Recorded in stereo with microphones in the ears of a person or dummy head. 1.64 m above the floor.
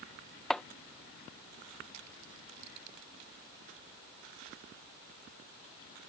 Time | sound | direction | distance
0.5 | chopping | centre (ahead or behind) | ?